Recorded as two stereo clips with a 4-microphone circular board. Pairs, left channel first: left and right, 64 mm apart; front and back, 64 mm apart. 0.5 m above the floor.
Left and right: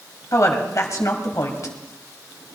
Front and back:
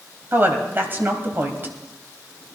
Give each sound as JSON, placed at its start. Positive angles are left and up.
{"t": 0.3, "sound": "a woman speaking", "azimuth_deg": 125, "distance_m": 2.5}